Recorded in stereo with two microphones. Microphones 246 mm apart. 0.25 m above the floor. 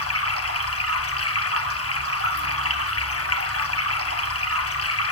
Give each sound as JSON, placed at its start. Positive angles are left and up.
{"t": 0.0, "sound": "running water", "side_deg": 70, "distance_m": 1.4}